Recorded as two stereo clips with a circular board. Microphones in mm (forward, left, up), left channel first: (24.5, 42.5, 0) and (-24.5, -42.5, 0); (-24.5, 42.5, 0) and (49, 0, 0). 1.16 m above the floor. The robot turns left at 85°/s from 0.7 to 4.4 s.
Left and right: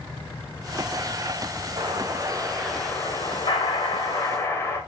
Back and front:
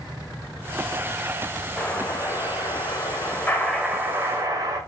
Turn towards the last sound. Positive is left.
turn(degrees=0)